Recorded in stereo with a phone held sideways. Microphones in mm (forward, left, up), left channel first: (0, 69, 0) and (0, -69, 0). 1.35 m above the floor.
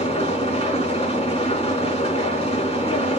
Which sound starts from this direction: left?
An engine running, at 0.0 s.